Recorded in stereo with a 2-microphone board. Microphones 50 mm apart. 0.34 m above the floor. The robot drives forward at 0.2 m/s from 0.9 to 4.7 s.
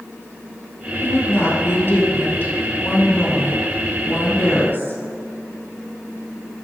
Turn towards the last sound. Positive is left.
turn(degrees=40)  # may be behind; listen again after turning